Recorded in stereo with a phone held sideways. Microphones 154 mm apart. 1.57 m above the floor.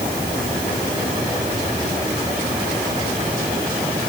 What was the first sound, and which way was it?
Only background noise.